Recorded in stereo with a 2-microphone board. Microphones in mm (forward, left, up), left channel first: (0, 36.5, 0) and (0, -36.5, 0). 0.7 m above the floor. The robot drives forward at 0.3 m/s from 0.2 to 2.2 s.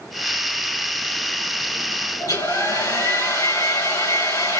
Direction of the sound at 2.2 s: 65° left (ahead or behind).